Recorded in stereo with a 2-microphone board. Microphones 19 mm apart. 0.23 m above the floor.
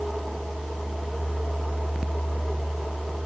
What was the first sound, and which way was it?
Only background noise.